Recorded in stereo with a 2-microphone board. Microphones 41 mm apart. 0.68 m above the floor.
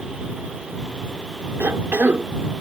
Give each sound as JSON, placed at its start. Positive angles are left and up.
{"t": 1.6, "sound": "a cough", "side_deg": -65}